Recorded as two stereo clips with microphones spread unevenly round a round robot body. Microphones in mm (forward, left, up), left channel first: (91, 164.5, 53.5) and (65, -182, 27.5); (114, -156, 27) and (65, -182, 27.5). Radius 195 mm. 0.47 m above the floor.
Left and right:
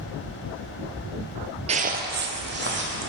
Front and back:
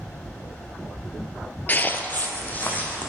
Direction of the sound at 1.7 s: 25° right.